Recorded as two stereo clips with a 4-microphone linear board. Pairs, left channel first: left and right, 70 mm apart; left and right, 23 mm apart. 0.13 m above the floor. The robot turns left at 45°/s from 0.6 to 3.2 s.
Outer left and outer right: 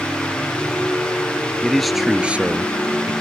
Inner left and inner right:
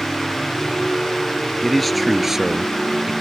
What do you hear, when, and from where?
1.6 s a man speaking: 15° left; by 3.1 s 55° right